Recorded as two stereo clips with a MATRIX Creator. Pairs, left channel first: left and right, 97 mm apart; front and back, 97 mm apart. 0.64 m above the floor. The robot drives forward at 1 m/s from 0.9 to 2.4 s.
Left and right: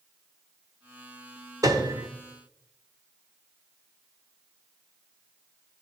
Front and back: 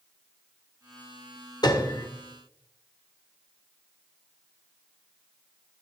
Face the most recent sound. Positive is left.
turn(degrees=-80)